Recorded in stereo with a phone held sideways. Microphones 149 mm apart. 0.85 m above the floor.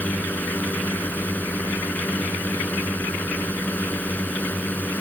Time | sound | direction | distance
0.0 | a drone | 10° left (ahead or behind) | ?